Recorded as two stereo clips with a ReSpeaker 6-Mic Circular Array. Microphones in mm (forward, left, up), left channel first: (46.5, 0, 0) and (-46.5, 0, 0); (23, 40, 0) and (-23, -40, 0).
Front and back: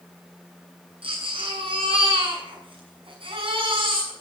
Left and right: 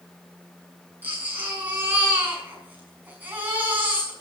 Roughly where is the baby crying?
Behind.